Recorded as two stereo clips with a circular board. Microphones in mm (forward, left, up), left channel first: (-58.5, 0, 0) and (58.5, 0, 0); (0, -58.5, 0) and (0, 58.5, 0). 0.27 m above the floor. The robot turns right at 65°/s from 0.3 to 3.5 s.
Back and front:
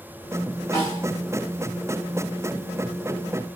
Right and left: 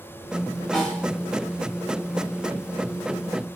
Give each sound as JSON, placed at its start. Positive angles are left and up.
{"t": 0.7, "sound": "a snare drum", "azimuth_deg": -175, "distance_m": 1.6}